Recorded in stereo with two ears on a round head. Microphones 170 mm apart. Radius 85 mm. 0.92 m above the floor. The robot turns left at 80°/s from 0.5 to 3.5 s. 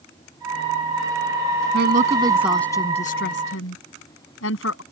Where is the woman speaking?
65° right (ahead or behind); by 4.8 s 80° left.